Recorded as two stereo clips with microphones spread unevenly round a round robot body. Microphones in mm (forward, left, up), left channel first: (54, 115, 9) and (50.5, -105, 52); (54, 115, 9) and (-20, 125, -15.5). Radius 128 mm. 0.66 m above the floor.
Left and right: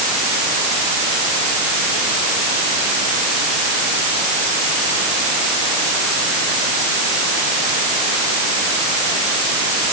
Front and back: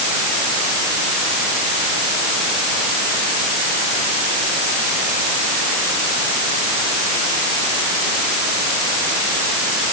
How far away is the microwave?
I don't hear a microwave.